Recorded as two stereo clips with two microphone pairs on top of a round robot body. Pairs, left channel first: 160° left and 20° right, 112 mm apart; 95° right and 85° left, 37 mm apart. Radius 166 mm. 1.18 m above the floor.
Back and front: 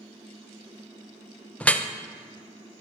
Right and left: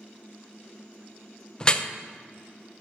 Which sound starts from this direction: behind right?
Dripping, at 1.6 s.